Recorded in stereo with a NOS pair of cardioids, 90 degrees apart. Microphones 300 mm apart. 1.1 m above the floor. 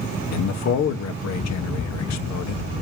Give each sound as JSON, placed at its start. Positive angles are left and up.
{"t": 0.3, "sound": "a man speaking", "azimuth_deg": 65, "distance_m": 1.6}